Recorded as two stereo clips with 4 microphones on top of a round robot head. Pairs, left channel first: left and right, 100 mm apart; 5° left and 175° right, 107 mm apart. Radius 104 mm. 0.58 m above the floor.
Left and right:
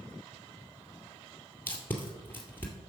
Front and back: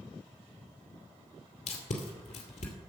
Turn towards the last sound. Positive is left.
turn(degrees=20)